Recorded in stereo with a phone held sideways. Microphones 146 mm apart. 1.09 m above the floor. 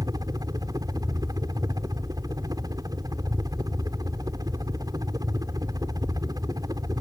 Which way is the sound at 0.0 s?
25° right (ahead or behind).